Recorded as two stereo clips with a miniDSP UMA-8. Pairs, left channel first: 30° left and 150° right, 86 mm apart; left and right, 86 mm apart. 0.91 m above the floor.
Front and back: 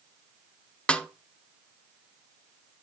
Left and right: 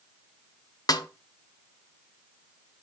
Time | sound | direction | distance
0.9 | a snare drum | 100° left | 0.5 m